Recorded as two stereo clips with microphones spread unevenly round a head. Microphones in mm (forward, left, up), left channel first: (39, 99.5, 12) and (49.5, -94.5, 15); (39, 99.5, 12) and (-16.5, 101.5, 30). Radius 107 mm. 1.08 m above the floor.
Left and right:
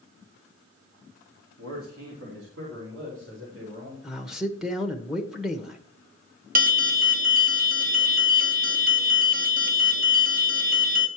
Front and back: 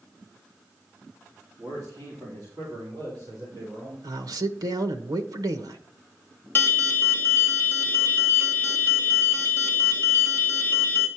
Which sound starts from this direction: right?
A man speaking, at 1.6 s.